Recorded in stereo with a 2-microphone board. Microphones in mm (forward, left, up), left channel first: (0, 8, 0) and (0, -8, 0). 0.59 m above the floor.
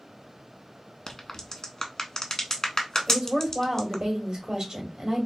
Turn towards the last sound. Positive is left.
turn(degrees=-55)  # may be behind; listen again after turning